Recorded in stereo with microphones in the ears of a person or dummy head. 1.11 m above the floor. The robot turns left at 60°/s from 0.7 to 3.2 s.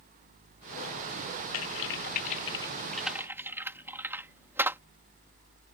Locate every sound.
1.5 s typing on a keyboard: 75° left (ahead or behind); by 4.8 s 5° right (ahead or behind)